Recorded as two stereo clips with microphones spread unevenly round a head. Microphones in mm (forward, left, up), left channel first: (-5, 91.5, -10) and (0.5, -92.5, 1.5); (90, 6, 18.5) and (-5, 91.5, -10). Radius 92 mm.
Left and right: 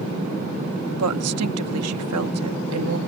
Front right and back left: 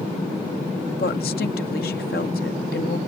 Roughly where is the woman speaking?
Right.